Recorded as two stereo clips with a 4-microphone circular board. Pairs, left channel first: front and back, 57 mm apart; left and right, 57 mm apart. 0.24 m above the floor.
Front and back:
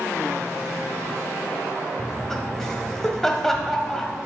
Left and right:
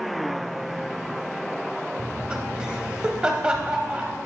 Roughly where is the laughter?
Ahead right.